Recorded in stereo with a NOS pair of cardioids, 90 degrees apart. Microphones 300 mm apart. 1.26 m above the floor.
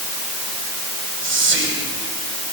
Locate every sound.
1.2 s whispering: 40° right, 8 m